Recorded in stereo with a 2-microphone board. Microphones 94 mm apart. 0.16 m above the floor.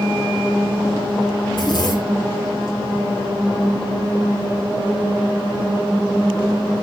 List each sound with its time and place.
1.5 s a zipper: 50° left (ahead or behind), 2 m